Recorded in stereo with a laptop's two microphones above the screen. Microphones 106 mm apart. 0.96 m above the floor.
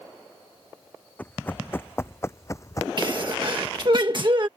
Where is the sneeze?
45° right (ahead or behind).